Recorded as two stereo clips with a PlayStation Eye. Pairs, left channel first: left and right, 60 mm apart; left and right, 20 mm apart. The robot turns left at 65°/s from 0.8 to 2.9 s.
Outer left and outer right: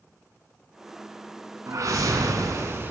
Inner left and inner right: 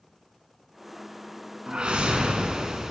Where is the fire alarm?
No fire alarm in this recording.